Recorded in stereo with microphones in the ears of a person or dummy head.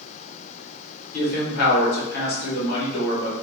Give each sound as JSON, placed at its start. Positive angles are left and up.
{"t": 1.1, "sound": "a man speaking", "side_deg": 60, "distance_m": 1.8}